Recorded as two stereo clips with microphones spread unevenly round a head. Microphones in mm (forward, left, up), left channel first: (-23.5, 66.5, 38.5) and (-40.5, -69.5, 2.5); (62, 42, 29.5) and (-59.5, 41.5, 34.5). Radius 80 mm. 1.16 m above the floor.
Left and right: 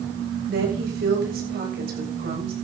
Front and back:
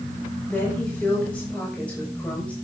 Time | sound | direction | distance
0.5 | a woman speaking | 80° right | 7 m